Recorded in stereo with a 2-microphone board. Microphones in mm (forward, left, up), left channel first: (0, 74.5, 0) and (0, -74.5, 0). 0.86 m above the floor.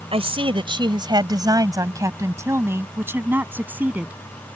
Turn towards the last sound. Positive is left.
turn(degrees=-10)  # may be behind; listen again after turning